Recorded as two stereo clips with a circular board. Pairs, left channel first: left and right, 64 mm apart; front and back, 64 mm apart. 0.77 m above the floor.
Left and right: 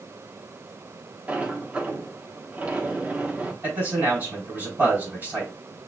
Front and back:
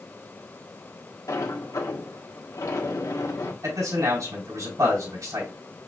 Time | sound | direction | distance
1.3 | a sliding door | 20° right | 1.3 m
3.6 | a man speaking | 150° right | 3 m